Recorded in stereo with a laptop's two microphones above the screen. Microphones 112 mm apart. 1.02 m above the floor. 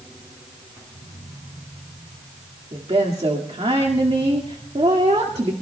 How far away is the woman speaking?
About 1.9 m.